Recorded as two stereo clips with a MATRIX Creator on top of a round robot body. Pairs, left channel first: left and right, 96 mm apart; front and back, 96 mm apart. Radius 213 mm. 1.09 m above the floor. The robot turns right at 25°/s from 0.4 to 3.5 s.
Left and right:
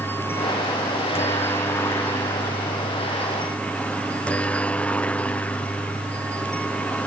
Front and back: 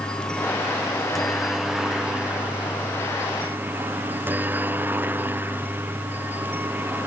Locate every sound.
0.0 s a helicopter: 70° left; by 7.1 s 145° left